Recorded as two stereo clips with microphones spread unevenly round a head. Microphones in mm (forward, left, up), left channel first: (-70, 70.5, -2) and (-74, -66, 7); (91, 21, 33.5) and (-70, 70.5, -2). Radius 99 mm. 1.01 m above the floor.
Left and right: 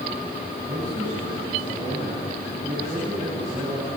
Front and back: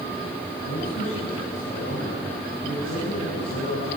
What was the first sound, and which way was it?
A man speaking, 15° right.